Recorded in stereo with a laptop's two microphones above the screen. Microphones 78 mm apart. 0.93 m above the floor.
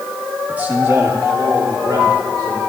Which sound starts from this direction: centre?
A man speaking, at 0.5 s.